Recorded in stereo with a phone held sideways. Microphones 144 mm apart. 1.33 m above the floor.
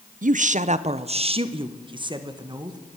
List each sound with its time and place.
0.2 s a woman speaking: 60° right (ahead or behind), 0.5 m; by 2.8 s 25° right (ahead or behind), 1.6 m